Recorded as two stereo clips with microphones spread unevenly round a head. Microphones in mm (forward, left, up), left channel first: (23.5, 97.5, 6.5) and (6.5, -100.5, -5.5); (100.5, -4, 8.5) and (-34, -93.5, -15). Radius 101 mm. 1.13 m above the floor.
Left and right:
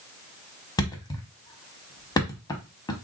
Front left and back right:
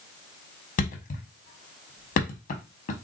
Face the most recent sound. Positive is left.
turn(degrees=20)